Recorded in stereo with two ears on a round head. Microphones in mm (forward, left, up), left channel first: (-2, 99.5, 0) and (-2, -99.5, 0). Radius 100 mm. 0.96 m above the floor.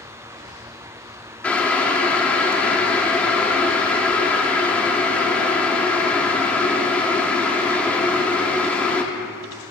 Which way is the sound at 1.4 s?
5° left (ahead or behind).